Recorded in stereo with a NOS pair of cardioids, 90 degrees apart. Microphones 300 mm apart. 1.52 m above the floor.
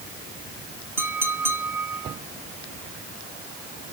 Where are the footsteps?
No footsteps in this recording.